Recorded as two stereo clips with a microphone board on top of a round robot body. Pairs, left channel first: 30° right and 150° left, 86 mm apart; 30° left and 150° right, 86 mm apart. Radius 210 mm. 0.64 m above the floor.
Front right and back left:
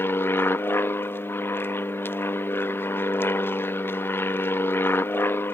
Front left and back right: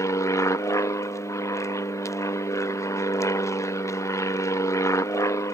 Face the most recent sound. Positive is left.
turn(degrees=15)